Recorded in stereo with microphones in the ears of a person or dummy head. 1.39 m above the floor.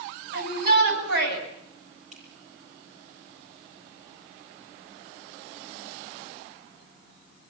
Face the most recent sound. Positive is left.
turn(degrees=-45)  # may be behind; listen again after turning